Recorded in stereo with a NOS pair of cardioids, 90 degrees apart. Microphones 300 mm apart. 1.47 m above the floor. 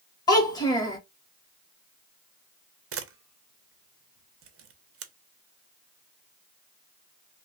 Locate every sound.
0.3 s a child speaking: 15° left, 1.3 m
2.9 s a camera shutter: 50° right, 0.7 m